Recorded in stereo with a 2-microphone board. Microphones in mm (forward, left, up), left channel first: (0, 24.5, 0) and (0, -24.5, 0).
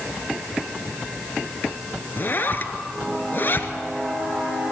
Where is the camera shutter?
I don't hear a camera shutter.